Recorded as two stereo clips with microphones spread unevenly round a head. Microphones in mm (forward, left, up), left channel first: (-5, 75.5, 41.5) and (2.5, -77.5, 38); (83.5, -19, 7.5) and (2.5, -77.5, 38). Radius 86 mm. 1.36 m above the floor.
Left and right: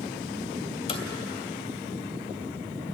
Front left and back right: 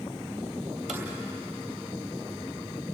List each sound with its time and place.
0.9 s footsteps: 140° left, 2.5 m